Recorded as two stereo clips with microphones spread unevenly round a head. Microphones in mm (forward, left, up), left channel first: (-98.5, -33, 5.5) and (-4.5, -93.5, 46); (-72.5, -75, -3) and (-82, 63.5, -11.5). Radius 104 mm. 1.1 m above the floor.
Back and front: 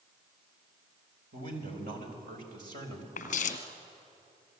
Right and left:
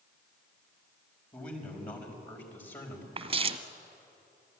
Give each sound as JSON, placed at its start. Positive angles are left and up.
{"t": 1.3, "sound": "a man speaking", "azimuth_deg": -20, "distance_m": 5.0}
{"t": 3.2, "sound": "footsteps", "azimuth_deg": 110, "distance_m": 1.4}